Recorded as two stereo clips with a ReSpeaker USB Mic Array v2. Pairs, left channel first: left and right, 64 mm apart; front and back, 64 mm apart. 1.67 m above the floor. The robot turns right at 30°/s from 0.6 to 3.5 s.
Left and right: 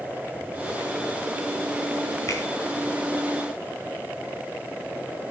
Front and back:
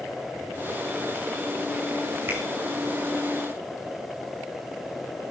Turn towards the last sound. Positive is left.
turn(degrees=165)